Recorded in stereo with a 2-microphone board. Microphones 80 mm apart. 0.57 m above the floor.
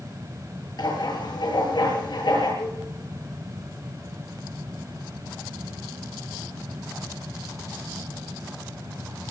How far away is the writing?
About 9 m.